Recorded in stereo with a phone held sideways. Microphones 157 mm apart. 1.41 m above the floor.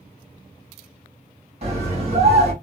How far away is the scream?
About 2 m.